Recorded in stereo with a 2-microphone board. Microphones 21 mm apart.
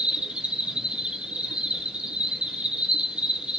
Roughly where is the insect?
Right.